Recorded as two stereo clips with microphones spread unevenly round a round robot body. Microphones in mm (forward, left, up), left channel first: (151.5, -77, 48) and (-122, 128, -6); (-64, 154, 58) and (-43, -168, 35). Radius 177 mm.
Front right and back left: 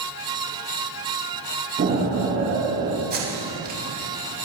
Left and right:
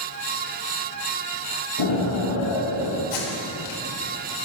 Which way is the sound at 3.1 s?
80° left.